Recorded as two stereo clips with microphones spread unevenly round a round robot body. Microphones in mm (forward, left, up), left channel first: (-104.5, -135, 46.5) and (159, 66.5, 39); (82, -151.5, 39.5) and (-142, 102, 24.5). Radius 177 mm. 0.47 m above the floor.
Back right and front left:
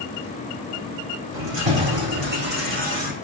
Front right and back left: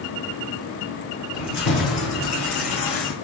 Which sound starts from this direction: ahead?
Keys jangling, at 1.3 s.